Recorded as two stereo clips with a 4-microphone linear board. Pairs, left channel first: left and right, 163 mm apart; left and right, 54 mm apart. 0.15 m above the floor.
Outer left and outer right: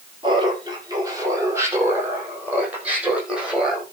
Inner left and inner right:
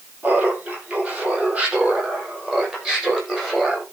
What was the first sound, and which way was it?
Laughter, 30° right (ahead or behind).